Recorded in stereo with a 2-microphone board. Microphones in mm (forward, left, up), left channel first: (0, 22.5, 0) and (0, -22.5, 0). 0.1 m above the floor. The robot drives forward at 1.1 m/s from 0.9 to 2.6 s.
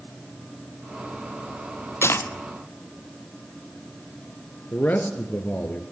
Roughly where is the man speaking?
Left.